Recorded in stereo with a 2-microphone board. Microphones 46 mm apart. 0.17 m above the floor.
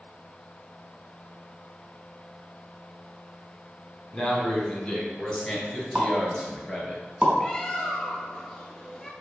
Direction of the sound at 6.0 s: 35° right (ahead or behind).